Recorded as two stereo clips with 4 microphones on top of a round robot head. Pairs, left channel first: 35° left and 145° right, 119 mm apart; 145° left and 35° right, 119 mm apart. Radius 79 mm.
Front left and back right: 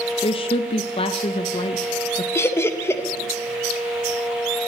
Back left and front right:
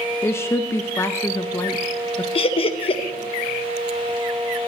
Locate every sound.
0.2 s a woman speaking: 75° left, 0.6 m
2.4 s laughter: 105° left, 0.7 m